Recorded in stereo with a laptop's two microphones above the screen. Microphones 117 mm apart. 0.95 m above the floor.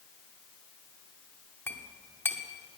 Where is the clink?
20° left (ahead or behind), 1.0 m.